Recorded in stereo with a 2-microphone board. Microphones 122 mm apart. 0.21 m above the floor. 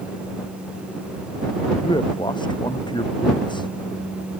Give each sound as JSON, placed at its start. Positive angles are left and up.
{"t": 1.8, "sound": "a man speaking", "side_deg": 45}